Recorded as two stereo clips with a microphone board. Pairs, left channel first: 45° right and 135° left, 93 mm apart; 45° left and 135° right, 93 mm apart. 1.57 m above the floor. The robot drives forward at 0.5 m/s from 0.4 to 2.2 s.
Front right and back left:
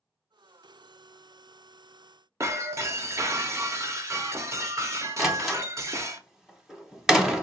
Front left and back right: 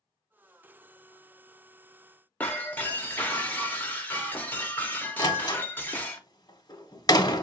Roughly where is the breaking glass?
Left.